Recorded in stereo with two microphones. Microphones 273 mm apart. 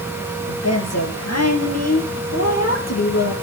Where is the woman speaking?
65° left (ahead or behind), 3.5 m; by 3.3 s 70° left (ahead or behind), 5.5 m.